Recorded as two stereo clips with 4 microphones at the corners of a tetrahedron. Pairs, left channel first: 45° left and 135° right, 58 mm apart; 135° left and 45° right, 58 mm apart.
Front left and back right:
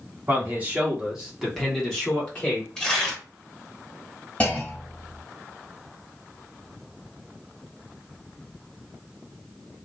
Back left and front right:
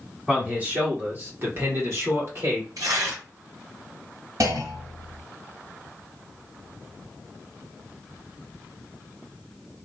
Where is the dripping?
I don't hear dripping.